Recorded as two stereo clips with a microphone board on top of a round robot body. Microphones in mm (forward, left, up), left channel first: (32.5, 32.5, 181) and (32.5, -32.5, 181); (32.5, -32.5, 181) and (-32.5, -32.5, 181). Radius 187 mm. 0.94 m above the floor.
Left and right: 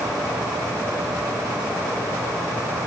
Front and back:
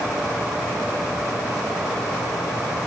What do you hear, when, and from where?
Only background noise.